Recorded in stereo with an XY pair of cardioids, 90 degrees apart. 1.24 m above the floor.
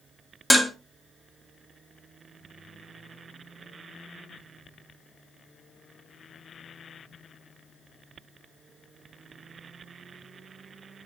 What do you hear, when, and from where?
0.5 s dishes clattering: straight ahead, 1.4 m